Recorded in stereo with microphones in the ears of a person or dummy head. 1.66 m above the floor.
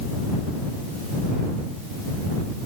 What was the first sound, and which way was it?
Only background noise.